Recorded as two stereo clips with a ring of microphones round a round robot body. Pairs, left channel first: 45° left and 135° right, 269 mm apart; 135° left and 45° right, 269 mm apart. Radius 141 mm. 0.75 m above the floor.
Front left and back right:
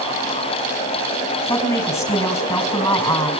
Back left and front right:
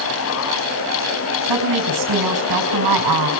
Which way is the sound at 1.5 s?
35° right.